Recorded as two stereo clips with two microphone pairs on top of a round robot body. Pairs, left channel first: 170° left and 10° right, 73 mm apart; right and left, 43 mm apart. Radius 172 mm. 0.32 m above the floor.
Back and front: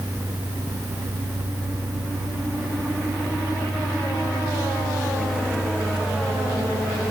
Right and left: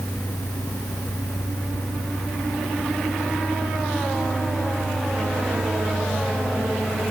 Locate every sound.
Only background noise.